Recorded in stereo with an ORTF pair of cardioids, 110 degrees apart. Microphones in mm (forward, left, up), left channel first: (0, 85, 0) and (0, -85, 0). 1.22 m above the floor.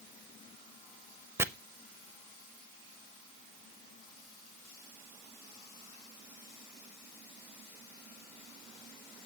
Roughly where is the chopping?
Ahead.